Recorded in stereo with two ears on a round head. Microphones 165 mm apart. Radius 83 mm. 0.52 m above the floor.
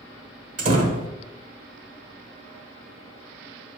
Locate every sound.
0.6 s a door slam: 40° right (ahead or behind), 1.2 m